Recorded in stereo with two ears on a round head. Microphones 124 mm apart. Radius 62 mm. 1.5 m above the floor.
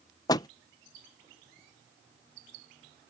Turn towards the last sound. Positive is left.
turn(degrees=25)  # may be behind; listen again after turning